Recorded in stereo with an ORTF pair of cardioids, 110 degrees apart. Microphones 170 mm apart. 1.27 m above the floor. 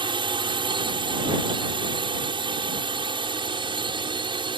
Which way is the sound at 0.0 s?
30° right.